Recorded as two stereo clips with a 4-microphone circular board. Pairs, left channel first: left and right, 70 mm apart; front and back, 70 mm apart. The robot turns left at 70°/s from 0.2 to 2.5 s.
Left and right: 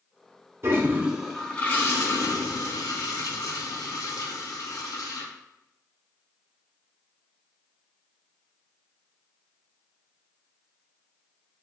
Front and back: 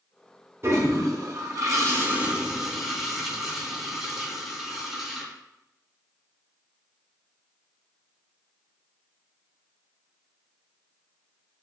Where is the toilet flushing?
135° right, 0.6 m; by 5.3 s 95° left, 0.6 m.